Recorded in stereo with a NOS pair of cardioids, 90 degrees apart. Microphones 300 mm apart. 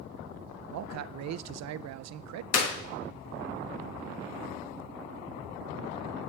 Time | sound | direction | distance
0.7 | a man speaking | 65° right | 0.5 m
2.5 | a clap | 55° left | 1.6 m